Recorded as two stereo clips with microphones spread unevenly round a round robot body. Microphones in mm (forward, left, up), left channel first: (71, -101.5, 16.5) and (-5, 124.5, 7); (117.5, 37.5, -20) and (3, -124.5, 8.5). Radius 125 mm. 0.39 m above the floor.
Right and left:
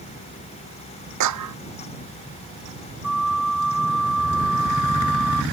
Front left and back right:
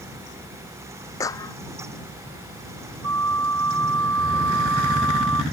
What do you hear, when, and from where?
1.2 s a clap: 135° left
3.0 s a flute: 160° right